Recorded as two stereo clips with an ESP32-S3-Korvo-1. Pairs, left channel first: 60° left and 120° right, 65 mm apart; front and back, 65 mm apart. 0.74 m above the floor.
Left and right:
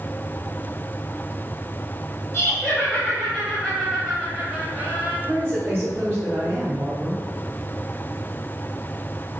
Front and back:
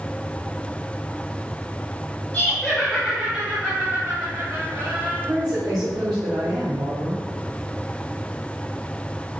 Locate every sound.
2.3 s laughter: 60° left, 1.2 m; by 5.2 s straight behind, 1.5 m
5.3 s a woman speaking: 175° right, 1.7 m